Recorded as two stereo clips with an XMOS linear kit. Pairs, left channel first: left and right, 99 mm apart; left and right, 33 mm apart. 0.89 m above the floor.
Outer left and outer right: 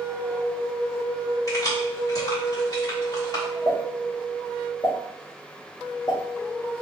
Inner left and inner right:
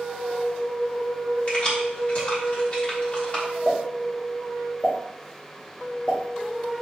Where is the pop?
45° left (ahead or behind), 2 m.